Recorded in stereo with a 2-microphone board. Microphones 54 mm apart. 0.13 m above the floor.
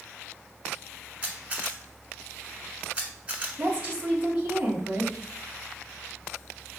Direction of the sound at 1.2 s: 25° right (ahead or behind).